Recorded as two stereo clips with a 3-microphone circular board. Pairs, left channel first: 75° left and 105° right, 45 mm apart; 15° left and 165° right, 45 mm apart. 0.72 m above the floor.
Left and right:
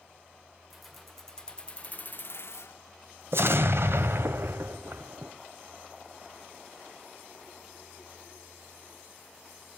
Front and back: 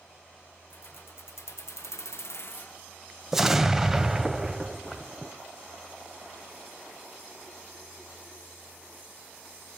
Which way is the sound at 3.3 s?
80° right.